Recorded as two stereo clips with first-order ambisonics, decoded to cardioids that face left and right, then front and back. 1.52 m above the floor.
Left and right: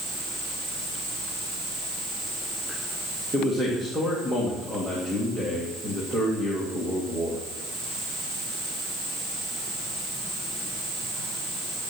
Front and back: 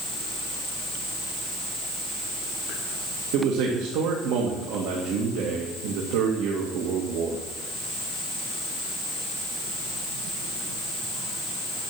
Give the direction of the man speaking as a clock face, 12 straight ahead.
6 o'clock.